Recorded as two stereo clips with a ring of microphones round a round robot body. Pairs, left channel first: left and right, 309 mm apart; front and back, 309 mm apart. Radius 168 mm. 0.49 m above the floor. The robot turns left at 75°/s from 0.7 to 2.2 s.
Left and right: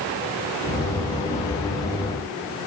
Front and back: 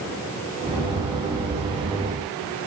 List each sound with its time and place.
Only background noise.